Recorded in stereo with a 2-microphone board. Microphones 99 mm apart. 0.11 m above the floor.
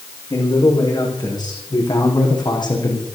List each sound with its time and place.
0.3 s a man speaking: 45° left (ahead or behind), 8 m; by 3.0 s 50° left (ahead or behind), 6 m